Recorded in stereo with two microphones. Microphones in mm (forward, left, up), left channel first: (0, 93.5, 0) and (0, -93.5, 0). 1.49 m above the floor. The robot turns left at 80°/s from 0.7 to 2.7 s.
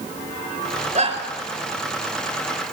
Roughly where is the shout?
Right.